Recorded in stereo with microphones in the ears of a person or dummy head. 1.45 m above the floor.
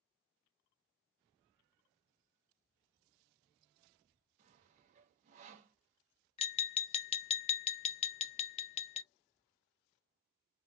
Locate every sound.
4.4 s sawing: 40° right (ahead or behind), 0.8 m
6.4 s tapping: 35° left (ahead or behind), 0.5 m